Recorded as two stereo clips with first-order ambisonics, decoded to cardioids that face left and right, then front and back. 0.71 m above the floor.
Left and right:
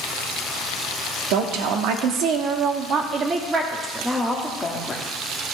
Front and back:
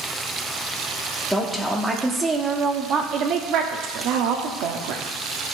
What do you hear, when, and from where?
1.3 s a woman speaking: 90° right, 1.4 m; by 5.0 s 170° left, 1.4 m